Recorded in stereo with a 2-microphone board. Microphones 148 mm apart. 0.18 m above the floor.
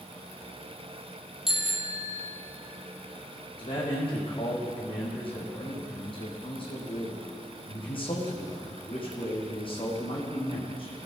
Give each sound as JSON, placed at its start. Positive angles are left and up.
{"t": 1.5, "sound": "a bicycle bell", "side_deg": -5, "distance_m": 3.5}
{"t": 3.6, "sound": "a man speaking", "side_deg": 40, "distance_m": 7.5}